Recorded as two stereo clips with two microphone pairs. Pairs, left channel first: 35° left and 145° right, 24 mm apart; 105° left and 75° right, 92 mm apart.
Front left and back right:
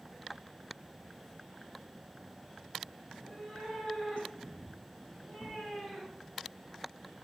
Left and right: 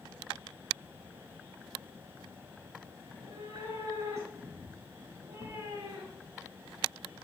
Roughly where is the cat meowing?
Ahead.